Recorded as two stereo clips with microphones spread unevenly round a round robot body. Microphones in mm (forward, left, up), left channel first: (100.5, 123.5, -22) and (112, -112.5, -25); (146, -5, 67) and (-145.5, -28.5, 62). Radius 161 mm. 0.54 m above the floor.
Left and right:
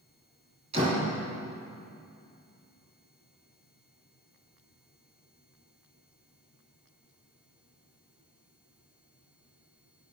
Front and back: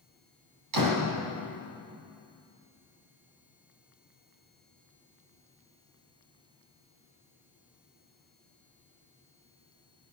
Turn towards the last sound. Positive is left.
turn(degrees=-160)